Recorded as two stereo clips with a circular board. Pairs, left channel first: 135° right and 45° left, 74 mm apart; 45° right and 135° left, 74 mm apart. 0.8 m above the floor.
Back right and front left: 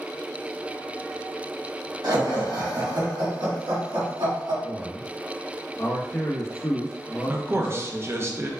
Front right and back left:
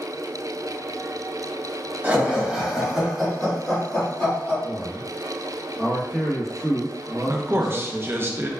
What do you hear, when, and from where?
2.0 s laughter: 70° left, 1.2 m; by 4.5 s 25° left, 2 m
4.6 s a man speaking: 155° right, 0.7 m
7.3 s a man speaking: 90° left, 0.6 m